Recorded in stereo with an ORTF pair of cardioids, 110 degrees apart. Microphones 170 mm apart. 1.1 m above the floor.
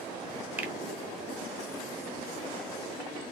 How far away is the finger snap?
About 0.6 m.